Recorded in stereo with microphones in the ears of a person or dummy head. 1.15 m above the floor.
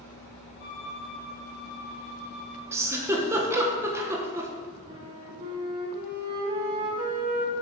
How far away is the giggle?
About 1.0 m.